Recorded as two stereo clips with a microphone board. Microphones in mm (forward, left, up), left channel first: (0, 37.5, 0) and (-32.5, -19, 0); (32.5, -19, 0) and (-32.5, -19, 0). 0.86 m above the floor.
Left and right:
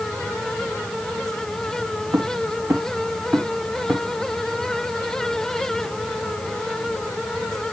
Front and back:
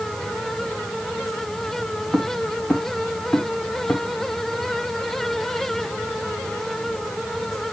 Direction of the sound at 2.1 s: 85° right.